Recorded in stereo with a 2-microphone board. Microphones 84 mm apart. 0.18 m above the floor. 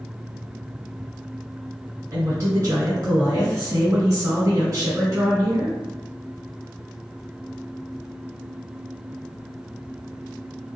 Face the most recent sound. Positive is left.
turn(degrees=-35)  # may be behind; listen again after turning